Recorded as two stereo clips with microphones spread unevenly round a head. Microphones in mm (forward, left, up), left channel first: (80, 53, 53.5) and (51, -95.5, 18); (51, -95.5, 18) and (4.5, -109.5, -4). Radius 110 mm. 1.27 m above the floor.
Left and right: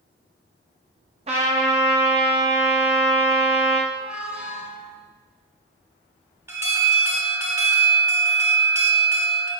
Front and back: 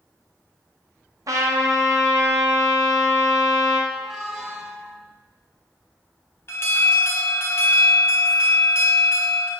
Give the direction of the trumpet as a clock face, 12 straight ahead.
5 o'clock.